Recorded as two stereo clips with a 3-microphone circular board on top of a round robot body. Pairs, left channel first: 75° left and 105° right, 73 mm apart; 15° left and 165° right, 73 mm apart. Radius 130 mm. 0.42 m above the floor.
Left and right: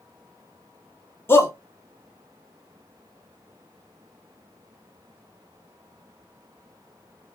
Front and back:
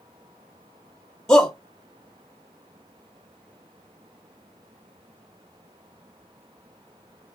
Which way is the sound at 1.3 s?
90° left.